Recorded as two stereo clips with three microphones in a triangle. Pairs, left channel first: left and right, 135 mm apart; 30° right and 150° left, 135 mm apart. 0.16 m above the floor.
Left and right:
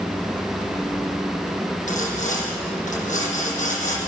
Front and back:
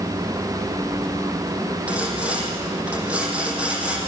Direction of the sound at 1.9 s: 70° left.